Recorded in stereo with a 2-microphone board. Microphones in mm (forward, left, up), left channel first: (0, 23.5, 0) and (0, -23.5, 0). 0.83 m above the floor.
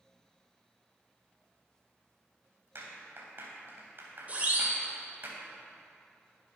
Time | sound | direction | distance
2.8 | a clap | 50° right (ahead or behind) | 3.5 m
4.3 | a siren | 35° right (ahead or behind) | 3.5 m